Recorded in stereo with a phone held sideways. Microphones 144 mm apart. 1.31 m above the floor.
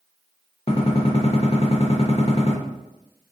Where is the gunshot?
40° left (ahead or behind), 0.7 m.